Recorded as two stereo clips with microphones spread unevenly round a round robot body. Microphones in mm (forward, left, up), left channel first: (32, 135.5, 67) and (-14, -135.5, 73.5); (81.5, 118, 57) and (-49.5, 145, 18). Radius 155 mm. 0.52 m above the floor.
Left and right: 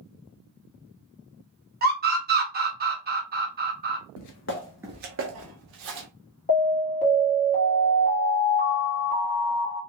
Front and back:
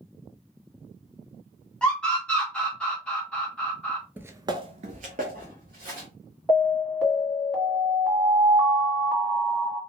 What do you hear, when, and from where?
1.8 s a scream: 115° right, 1.2 m
4.2 s footsteps: 80° left, 0.7 m; by 6.1 s 125° right, 1.5 m
6.5 s an alarm: 120° left, 1.9 m